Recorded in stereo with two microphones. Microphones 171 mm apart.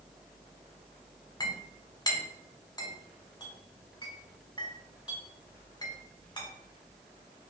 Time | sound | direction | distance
1.4 | a clink | 25° left (ahead or behind) | 1.0 m